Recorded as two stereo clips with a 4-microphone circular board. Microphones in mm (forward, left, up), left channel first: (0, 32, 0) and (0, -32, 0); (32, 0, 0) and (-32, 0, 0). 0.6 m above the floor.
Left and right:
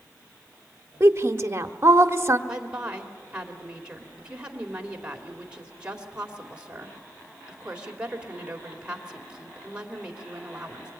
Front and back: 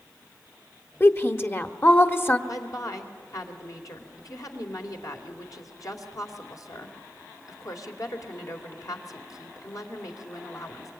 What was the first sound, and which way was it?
A woman speaking, 50° right.